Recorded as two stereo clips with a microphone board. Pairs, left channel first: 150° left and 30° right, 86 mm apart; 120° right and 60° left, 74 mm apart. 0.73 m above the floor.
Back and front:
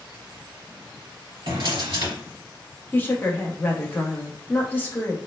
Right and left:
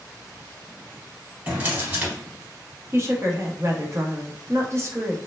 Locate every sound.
1.5 s a drawer: 10° right, 1.1 m
2.9 s a woman speaking: 95° left, 0.6 m